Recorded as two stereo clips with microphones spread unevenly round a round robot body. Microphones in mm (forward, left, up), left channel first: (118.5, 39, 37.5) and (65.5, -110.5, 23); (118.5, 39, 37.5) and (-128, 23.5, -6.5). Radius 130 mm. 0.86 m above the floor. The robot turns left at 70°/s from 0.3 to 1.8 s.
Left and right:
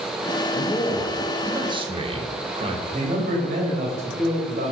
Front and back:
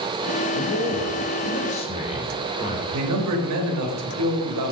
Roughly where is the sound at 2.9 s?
Behind.